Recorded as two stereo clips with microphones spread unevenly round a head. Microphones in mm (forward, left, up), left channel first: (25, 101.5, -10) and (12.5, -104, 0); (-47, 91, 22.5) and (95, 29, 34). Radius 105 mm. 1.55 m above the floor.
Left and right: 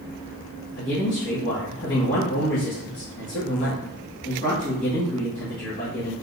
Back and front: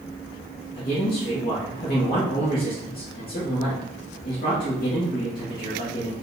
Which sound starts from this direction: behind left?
A man speaking, at 0.8 s.